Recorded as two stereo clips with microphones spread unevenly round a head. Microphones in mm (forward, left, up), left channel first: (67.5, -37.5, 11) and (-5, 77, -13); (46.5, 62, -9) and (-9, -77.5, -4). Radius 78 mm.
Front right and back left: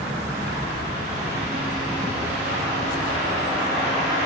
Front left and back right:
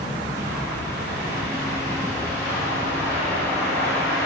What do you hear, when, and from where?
0.3 s a bird: 175° left, 3.5 m